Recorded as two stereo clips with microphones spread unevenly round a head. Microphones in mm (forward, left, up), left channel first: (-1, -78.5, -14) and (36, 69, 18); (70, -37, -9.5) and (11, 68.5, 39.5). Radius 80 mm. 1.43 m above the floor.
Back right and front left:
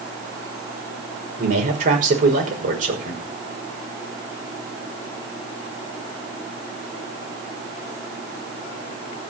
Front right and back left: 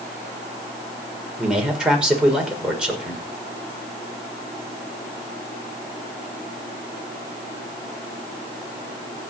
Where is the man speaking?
35° left, 5.5 m.